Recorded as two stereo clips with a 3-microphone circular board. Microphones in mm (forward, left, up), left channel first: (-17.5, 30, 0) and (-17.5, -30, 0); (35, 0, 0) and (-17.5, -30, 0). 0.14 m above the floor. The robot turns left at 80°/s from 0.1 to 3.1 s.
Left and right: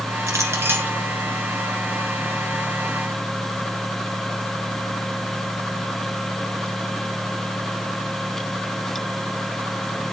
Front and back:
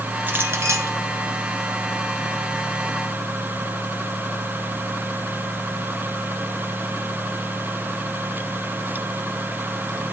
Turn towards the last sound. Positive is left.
turn(degrees=35)